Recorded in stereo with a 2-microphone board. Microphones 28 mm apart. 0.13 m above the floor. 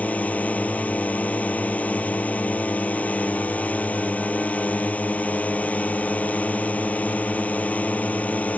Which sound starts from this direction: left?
A drone, at 0.0 s.